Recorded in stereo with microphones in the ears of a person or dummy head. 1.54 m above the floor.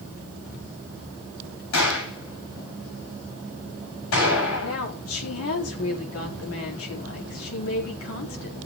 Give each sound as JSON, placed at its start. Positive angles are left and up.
{"t": 1.7, "sound": "a gunshot", "side_deg": 65, "distance_m": 8.5}
{"t": 4.6, "sound": "a woman speaking", "side_deg": 90, "distance_m": 4.5}